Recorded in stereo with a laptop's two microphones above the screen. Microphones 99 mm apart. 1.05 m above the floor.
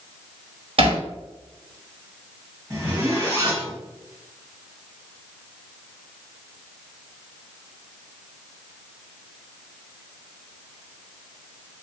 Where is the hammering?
70° right (ahead or behind), 1.2 m.